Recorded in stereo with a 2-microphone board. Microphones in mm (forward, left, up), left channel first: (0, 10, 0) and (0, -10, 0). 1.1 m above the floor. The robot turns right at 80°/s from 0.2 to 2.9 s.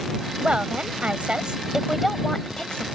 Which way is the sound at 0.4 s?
135° right.